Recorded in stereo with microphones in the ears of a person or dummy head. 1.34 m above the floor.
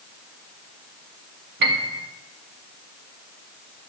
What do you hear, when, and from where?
1.6 s a piano: 60° right (ahead or behind), 1.8 m